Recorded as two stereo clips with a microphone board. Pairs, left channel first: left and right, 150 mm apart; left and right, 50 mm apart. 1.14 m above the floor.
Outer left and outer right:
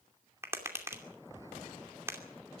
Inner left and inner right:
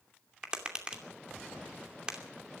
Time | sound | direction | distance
0.4 | tapping | 15° right (ahead or behind) | 2.5 m